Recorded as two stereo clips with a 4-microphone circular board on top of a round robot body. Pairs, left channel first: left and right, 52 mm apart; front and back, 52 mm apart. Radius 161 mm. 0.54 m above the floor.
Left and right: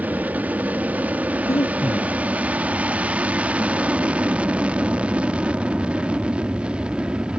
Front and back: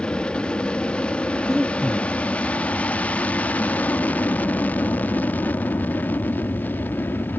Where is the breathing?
100° left.